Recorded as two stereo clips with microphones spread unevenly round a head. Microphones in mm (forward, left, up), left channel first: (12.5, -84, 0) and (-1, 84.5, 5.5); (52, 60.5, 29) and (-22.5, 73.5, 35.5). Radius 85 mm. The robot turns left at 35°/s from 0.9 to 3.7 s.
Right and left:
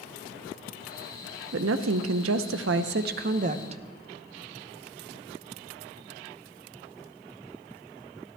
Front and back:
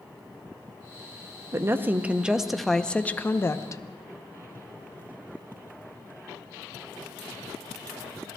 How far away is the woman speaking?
About 0.8 m.